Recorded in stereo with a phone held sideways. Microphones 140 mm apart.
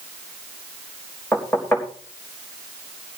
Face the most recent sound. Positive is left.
turn(degrees=15)  # may be behind; listen again after turning